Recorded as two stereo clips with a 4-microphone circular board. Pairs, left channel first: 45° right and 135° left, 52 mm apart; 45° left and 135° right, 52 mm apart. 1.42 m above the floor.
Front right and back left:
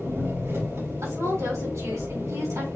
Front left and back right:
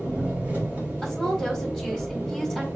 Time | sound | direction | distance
0.0 | an engine running | 160° left | 4 m
1.0 | a woman speaking | 135° left | 4.5 m